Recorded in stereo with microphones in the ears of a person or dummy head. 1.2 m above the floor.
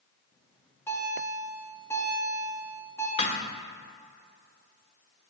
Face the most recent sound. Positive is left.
turn(degrees=35)  # may be behind; listen again after turning